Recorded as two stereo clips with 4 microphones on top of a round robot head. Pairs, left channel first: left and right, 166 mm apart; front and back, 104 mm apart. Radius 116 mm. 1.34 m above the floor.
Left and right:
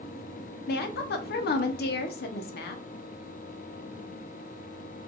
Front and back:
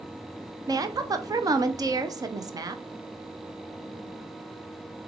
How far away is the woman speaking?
About 0.6 m.